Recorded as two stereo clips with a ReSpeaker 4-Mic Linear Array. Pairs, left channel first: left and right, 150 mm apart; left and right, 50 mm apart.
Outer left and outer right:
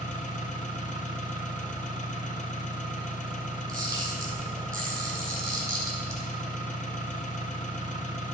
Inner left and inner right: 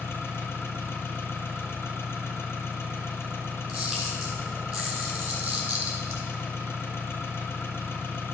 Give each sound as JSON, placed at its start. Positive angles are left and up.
{"t": 0.0, "sound": "an engine running", "side_deg": 60, "distance_m": 1.2}
{"t": 3.7, "sound": "a camera shutter", "side_deg": -20, "distance_m": 2.5}